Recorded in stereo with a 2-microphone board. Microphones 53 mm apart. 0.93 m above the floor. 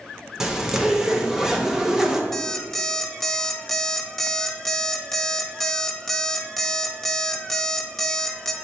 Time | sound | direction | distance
0.4 | a zipper | 10° right (ahead or behind) | 0.7 m
2.3 | an alarm clock | 5° left (ahead or behind) | 0.7 m